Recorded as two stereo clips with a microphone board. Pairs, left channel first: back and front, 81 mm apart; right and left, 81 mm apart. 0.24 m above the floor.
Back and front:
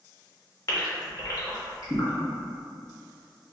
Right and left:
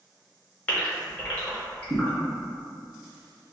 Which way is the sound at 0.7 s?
160° right.